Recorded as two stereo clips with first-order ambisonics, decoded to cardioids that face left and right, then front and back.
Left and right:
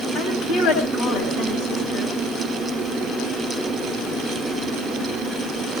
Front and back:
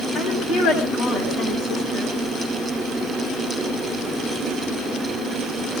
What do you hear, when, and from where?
0.1 s a woman speaking: 65° left, 7 m; by 2.1 s 50° left, 9 m